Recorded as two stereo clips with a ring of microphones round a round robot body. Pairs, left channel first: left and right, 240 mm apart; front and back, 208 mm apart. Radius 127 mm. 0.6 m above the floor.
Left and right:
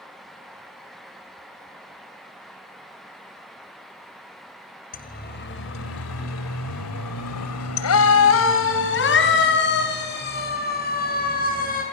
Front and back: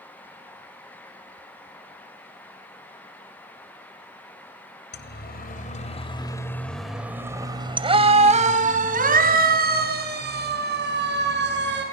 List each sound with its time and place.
4.9 s a siren: 35° left, 2.5 m; by 11.8 s 145° left, 7 m